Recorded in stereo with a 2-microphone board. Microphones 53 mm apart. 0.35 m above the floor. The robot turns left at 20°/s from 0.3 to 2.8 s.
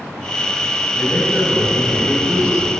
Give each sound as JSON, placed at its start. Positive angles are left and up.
{"t": 0.9, "sound": "a man speaking", "azimuth_deg": 45, "distance_m": 1.2}